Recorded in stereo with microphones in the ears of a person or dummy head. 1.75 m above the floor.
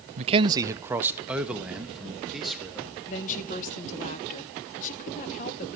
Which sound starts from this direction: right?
A man speaking, at 0.2 s.